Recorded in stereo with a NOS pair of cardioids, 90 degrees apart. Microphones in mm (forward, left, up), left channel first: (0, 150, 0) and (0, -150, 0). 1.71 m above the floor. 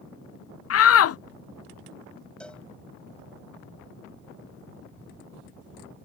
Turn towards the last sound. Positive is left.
turn(degrees=5)